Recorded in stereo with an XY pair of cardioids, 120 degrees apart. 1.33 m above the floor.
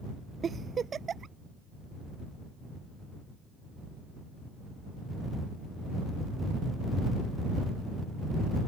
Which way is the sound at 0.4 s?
35° right.